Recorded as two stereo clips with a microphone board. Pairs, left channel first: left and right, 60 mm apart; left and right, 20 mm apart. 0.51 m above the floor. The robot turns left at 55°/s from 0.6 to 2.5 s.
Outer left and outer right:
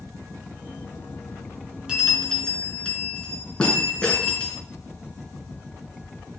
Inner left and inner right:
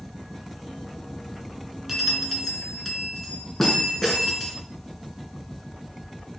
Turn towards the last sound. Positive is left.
turn(degrees=165)